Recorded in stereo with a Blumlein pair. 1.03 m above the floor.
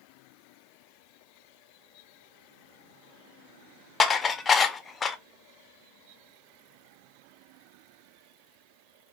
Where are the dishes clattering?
15° left, 0.5 m.